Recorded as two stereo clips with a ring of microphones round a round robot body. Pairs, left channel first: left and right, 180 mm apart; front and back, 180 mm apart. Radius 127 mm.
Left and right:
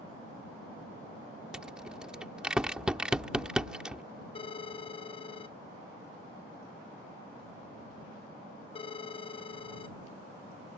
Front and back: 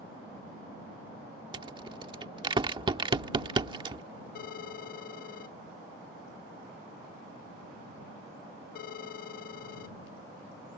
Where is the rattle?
170° right.